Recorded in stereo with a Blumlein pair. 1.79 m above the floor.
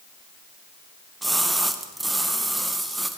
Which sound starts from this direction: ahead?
A splash, at 1.2 s.